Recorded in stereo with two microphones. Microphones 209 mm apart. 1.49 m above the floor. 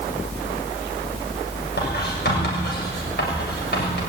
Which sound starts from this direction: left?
Writing, at 1.8 s.